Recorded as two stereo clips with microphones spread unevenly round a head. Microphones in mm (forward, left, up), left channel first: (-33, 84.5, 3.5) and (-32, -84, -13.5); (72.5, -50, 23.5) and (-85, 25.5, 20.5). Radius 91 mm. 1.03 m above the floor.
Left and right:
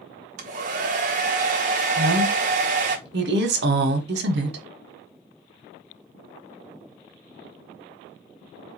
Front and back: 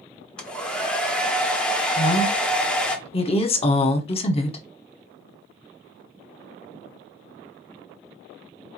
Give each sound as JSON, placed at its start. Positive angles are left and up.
{"t": 0.4, "sound": "a hair dryer", "azimuth_deg": -110, "distance_m": 0.9}
{"t": 2.0, "sound": "a woman speaking", "azimuth_deg": -80, "distance_m": 1.0}